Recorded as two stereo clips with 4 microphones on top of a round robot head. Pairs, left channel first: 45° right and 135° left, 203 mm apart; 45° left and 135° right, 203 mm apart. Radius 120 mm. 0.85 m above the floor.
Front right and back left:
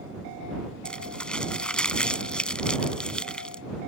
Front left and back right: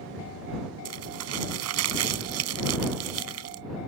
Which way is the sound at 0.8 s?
130° right.